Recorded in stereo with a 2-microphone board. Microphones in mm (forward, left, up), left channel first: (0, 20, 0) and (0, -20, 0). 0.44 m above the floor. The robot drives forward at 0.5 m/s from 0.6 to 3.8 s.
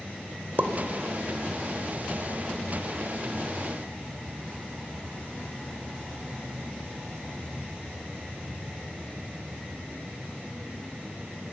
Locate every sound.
0.6 s a pop: 55° right (ahead or behind), 1.0 m